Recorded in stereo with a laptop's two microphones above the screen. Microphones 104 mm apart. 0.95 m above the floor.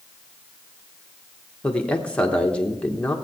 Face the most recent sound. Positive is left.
turn(degrees=10)  # may be behind; listen again after turning